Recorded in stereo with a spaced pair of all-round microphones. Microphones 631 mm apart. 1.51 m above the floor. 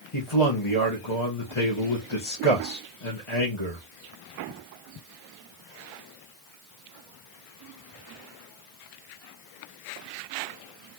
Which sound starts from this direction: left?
A man speaking, at 0.1 s.